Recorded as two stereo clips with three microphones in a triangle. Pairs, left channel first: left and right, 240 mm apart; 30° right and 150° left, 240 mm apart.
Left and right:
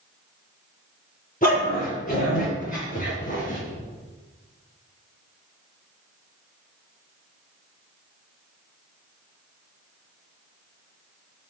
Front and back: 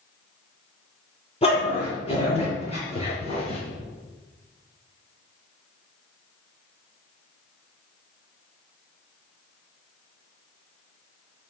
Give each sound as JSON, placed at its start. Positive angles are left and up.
{"t": 1.4, "sound": "a dog barking", "azimuth_deg": 35, "distance_m": 7.0}